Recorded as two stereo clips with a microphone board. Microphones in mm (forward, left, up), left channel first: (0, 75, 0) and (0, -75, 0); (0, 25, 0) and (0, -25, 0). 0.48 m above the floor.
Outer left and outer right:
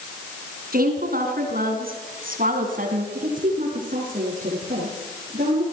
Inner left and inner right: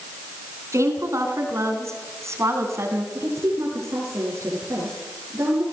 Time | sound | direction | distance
0.7 | a woman speaking | 80° right | 5.5 m
3.1 | a woman speaking | 65° right (ahead or behind) | 7 m